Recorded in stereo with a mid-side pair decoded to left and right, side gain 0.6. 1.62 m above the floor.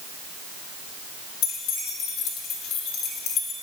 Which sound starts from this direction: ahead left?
Keys jangling, at 1.4 s.